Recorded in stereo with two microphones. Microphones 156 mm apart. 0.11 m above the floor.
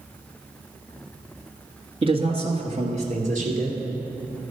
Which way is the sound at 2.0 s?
35° right (ahead or behind).